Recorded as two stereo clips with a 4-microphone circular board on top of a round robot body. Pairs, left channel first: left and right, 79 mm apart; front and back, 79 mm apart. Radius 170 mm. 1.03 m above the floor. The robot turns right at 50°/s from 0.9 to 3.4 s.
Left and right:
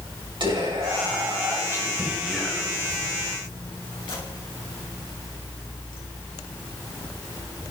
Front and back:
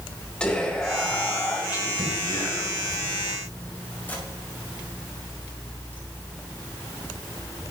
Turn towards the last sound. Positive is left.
turn(degrees=65)